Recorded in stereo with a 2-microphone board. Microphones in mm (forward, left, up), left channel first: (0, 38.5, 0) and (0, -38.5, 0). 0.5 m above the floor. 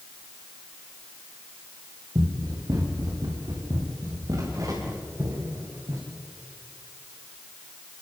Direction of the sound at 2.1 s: 55° right (ahead or behind).